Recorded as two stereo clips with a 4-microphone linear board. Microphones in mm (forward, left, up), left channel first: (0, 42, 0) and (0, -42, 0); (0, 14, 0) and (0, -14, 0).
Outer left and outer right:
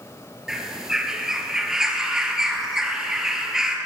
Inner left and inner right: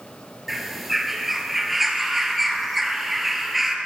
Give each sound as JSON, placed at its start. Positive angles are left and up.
{"t": 0.5, "sound": "a bird", "side_deg": -5, "distance_m": 0.8}